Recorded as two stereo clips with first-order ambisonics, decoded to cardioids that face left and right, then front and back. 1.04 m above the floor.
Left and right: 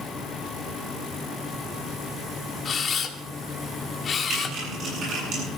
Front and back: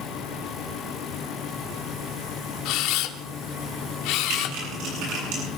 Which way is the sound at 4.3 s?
150° right.